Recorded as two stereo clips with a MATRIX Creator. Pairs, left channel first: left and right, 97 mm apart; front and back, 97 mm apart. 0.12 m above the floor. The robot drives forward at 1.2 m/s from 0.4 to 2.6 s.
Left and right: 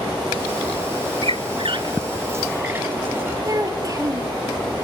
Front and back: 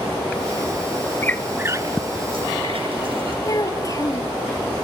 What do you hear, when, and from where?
1.2 s a squeak: 65° right, 0.6 m; by 3.4 s 160° right, 1.5 m
3.5 s a child speaking: 45° right, 2 m